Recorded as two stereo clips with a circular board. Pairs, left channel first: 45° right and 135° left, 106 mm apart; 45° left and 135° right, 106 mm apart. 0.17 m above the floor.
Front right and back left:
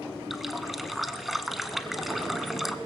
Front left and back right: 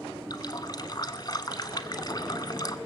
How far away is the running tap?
About 1.0 m.